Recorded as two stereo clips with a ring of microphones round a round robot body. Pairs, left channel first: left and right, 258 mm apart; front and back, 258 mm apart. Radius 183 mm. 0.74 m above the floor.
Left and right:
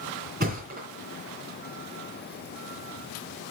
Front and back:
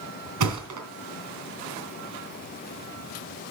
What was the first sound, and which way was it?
A thud, 155° right.